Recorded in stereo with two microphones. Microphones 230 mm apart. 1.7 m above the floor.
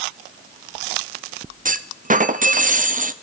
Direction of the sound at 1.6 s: 35° right (ahead or behind).